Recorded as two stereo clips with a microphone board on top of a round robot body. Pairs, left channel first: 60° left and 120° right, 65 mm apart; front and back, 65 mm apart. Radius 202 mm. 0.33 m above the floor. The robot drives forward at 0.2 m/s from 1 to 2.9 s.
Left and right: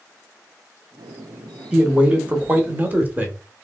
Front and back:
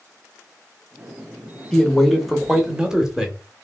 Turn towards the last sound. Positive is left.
turn(degrees=-115)